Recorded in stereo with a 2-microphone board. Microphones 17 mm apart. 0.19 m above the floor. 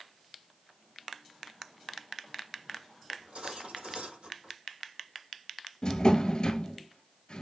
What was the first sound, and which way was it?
Cutlery clinking, 70° right (ahead or behind).